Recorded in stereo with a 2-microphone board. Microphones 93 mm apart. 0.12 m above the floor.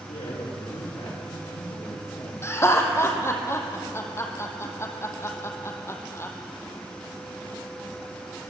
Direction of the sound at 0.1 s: 75° left (ahead or behind).